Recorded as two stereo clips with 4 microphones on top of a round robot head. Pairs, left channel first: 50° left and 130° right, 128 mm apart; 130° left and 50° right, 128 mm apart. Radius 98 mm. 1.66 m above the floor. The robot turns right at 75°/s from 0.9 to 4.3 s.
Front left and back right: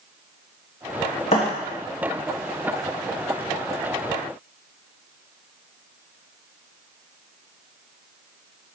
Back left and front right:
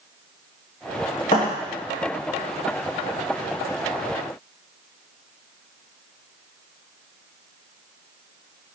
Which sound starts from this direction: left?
A thud, at 1.3 s.